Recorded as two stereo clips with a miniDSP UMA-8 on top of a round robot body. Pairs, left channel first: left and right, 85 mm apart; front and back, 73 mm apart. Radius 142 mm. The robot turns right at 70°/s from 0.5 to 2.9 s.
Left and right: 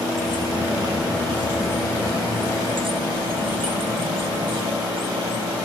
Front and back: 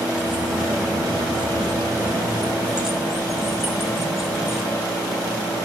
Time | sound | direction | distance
0.1 | keys jangling | 100° left | 2.5 m